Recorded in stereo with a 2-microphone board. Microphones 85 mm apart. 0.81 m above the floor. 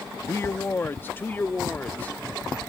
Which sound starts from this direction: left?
A man speaking, at 0.3 s.